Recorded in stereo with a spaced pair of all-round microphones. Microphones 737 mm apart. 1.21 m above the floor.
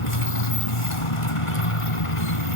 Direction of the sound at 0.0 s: 45° left (ahead or behind).